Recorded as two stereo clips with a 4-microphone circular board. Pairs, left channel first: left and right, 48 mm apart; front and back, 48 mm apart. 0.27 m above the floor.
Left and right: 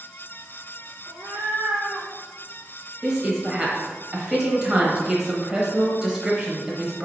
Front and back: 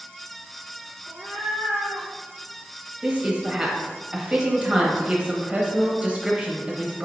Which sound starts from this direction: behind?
A cat meowing, at 1.1 s.